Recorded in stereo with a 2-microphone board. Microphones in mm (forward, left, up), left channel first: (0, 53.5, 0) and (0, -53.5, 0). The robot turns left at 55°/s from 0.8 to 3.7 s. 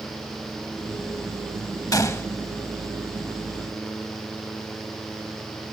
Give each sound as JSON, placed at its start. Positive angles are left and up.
{"t": 1.9, "sound": "a gunshot", "side_deg": 35, "distance_m": 0.6}